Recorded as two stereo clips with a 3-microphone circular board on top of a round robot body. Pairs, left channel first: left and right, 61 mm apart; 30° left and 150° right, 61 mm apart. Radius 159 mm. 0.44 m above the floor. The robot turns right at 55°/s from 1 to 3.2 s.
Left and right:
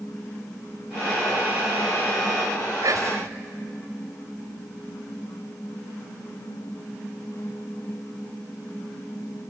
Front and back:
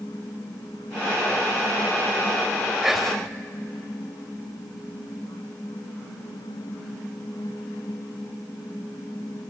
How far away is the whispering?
About 3 m.